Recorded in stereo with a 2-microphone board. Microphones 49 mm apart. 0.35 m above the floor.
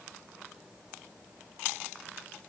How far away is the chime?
I don't hear a chime.